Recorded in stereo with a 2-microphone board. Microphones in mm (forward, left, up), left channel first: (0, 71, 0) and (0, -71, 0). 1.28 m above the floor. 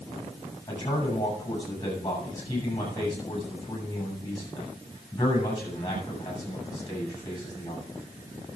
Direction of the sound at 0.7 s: 25° left (ahead or behind).